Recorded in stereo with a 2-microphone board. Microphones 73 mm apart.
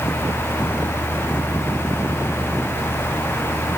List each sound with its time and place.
Only background noise.